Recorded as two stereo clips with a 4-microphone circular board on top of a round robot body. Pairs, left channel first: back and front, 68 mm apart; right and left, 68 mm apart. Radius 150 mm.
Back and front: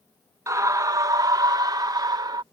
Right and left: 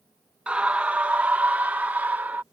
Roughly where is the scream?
Ahead.